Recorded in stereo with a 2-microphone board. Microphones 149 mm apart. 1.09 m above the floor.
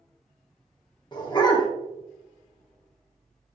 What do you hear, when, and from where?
1.1 s a dog barking: 30° left (ahead or behind), 0.8 m